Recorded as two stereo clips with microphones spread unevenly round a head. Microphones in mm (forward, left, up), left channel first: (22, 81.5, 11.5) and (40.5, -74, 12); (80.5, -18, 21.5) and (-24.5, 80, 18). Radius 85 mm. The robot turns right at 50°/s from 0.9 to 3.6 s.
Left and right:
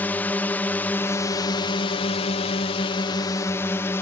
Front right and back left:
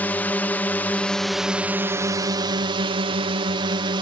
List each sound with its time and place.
0.0 s a drone: 25° left; by 4.0 s 160° left